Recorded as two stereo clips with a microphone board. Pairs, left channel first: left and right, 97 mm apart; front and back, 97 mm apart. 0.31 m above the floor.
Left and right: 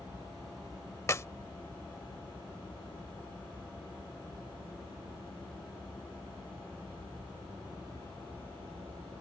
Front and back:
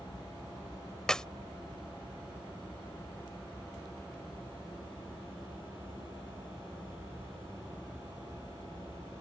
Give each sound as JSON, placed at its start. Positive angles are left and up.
{"t": 1.1, "sound": "a clap", "azimuth_deg": 75}